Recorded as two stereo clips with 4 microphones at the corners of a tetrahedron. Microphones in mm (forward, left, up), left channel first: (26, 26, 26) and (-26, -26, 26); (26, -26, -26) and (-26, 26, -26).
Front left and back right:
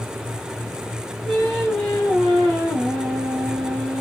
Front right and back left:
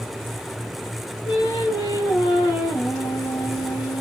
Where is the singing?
35° right, 3.5 m.